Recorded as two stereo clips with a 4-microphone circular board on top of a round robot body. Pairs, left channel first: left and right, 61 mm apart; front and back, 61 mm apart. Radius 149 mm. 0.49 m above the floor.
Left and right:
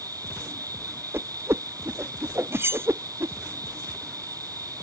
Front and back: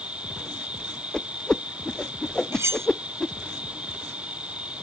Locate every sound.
0.0 s an insect: 110° right
1.1 s a whoosh: 75° right
2.5 s cutlery clinking: 140° right